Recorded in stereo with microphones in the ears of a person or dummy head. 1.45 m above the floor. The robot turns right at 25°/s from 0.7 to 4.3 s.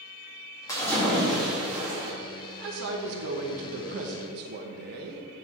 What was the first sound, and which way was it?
A splash, 165° left.